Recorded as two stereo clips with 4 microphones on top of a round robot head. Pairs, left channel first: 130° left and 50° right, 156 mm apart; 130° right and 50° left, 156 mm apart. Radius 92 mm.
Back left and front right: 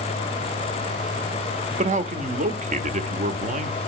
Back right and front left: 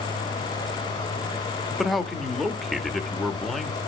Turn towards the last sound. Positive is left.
turn(degrees=-40)